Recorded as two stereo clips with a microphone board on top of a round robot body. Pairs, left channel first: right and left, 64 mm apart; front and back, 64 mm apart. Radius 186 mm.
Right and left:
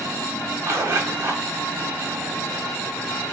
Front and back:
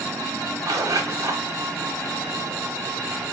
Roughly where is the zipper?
Behind left.